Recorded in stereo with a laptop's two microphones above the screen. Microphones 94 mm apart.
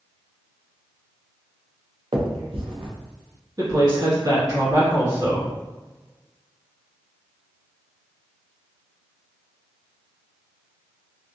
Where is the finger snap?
70° right (ahead or behind), 0.7 m.